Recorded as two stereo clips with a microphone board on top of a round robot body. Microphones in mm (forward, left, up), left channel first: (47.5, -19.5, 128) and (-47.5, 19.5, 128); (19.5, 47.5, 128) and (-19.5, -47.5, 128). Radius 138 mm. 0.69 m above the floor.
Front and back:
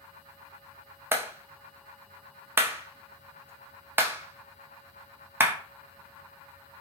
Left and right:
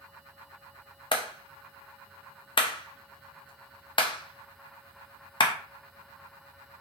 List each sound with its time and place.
1.1 s a clap: 95° left, 0.7 m